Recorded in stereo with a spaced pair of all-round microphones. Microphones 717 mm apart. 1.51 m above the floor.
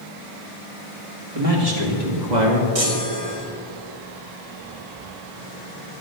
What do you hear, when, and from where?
1.4 s a man speaking: 50° right (ahead or behind), 2.5 m; by 2.6 s 80° right, 2.5 m
2.8 s a chime: 50° right (ahead or behind), 1.6 m